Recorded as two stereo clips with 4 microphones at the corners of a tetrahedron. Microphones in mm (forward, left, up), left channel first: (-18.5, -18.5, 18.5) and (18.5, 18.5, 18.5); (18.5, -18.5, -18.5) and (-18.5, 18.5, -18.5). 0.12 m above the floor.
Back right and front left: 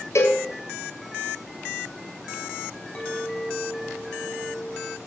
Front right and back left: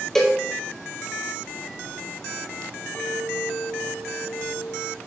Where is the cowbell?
125° right, 1.4 m.